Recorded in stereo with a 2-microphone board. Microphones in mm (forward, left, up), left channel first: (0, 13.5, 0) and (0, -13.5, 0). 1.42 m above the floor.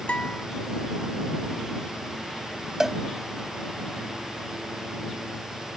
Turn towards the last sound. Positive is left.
turn(degrees=-20)  # may be behind; listen again after turning